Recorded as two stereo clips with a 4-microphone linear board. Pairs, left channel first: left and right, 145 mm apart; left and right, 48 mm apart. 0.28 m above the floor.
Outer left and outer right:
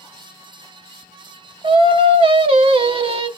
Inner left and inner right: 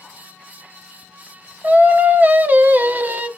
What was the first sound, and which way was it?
Singing, 40° right (ahead or behind).